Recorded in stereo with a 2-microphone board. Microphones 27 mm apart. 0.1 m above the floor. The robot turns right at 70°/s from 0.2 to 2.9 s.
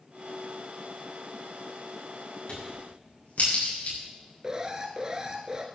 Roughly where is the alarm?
Right.